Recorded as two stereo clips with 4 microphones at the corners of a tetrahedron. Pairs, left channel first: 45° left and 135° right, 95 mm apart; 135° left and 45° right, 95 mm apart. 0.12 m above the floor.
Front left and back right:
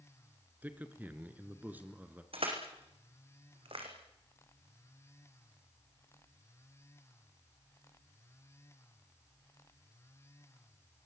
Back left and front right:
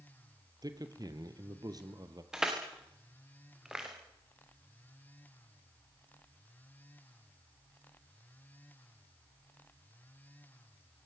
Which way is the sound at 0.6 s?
70° right.